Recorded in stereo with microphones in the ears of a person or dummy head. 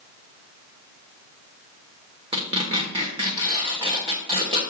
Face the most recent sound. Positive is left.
turn(degrees=-30)  # may be behind; listen again after turning